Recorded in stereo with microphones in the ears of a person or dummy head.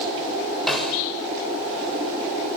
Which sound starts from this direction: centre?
A snare drum, at 0.7 s.